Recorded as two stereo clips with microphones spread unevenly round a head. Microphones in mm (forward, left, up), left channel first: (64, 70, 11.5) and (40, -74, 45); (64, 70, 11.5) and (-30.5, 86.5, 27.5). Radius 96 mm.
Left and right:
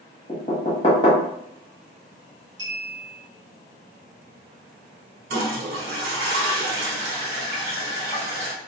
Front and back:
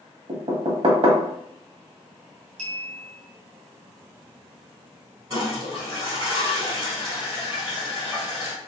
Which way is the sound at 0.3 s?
140° left.